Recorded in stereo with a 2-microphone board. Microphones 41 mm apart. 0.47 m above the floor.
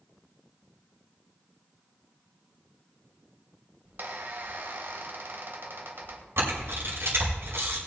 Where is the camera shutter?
75° right (ahead or behind), 5 m.